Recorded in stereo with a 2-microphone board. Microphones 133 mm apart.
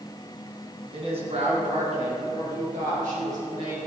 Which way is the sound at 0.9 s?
45° right (ahead or behind).